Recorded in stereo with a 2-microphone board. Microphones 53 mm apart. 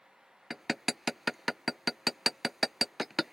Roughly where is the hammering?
Centre.